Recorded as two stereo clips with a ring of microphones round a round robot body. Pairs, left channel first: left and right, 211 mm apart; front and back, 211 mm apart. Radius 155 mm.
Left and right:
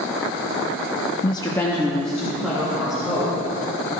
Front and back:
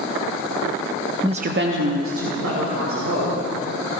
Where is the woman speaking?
120° left, 0.6 m; by 3.4 s 175° right, 3.5 m.